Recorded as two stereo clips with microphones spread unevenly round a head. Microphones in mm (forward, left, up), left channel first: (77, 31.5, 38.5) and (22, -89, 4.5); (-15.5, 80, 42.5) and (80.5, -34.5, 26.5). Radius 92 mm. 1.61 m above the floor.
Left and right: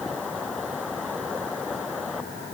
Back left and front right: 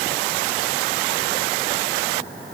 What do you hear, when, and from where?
Only background noise.